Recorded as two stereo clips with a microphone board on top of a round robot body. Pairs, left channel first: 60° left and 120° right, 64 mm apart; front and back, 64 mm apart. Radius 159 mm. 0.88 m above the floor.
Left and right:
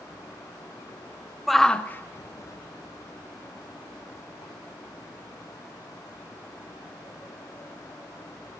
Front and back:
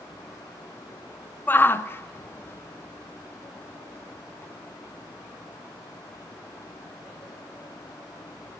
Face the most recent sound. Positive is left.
turn(degrees=70)